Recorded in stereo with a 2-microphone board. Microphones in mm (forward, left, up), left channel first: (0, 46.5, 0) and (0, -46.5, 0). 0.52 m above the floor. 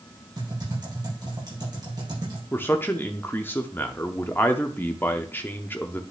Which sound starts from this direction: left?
A man speaking, at 2.5 s.